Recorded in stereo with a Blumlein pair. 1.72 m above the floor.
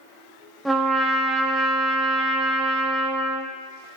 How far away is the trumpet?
About 0.9 m.